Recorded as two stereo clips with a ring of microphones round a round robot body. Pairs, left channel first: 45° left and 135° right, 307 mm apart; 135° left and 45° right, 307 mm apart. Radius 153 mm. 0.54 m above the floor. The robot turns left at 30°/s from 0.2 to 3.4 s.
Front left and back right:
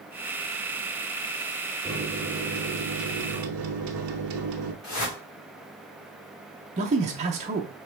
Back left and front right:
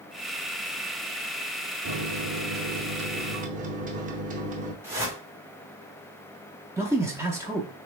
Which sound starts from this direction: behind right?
A man speaking, at 6.8 s.